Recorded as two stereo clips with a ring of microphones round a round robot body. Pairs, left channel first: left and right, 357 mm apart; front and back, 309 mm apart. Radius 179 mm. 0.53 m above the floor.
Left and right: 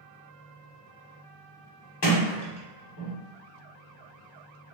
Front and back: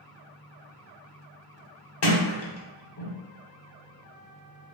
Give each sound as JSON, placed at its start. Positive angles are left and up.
{"t": 2.0, "sound": "a sliding door", "azimuth_deg": 40, "distance_m": 0.9}